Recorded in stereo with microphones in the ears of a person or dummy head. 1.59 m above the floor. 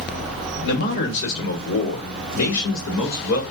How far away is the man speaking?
About 1.1 m.